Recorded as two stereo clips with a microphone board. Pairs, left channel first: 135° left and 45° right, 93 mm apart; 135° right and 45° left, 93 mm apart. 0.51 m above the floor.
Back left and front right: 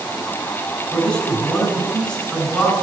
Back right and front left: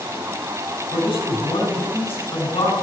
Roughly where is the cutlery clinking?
No cutlery clinking in this recording.